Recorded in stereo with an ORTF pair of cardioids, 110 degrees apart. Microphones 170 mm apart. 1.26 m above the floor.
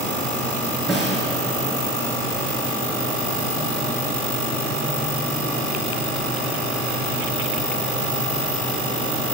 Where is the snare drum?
Straight ahead, 7 m.